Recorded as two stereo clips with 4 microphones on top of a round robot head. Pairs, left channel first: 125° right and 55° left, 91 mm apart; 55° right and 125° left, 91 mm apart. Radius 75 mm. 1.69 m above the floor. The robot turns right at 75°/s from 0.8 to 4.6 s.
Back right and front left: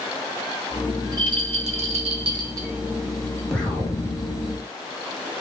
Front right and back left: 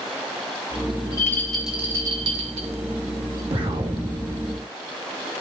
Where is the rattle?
5° right, 1.7 m; by 3.4 s 175° left, 1.7 m.